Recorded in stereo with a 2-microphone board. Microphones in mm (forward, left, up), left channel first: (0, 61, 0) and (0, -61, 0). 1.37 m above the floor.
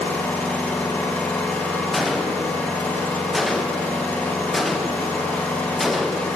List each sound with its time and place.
0.0 s an engine running: 15° left (ahead or behind), 1.2 m
1.9 s a gunshot: centre (ahead or behind), 0.6 m